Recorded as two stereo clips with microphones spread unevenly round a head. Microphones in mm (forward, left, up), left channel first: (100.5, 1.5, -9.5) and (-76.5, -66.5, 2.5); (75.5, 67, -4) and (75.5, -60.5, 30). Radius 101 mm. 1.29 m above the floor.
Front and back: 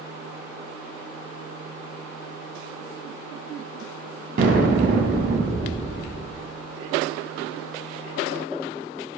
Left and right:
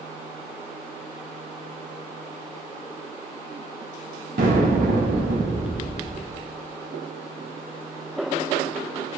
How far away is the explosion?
About 0.8 m.